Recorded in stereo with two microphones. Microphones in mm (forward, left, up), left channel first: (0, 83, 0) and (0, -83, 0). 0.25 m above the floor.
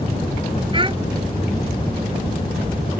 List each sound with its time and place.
0.7 s a child speaking: 30° right (ahead or behind)